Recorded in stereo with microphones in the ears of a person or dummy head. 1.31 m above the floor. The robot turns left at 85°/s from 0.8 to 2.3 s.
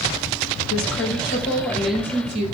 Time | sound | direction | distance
0.7 | a woman speaking | 90° left | 5.5 m